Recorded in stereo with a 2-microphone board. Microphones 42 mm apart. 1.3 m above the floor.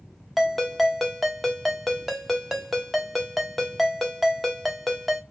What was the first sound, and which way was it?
A ringtone, centre (ahead or behind).